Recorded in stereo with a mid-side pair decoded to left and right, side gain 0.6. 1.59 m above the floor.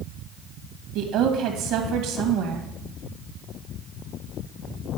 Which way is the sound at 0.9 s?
70° right.